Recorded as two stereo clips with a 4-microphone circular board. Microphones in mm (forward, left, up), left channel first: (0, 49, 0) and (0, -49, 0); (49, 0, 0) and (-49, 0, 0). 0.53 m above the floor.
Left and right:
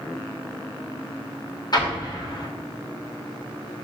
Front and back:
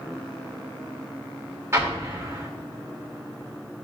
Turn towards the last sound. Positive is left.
turn(degrees=120)